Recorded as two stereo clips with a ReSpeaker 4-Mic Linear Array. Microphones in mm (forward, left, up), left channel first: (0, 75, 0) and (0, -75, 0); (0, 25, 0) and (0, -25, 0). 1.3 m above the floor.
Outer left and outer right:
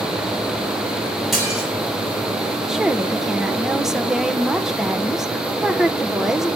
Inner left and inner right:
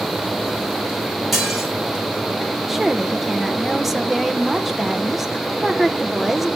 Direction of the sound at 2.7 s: 5° right (ahead or behind).